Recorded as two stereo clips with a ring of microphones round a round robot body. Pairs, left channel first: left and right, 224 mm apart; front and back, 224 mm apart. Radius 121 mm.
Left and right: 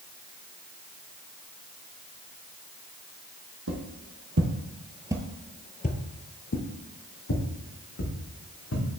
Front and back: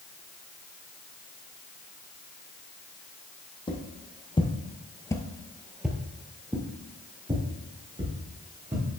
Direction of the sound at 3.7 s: 65° right.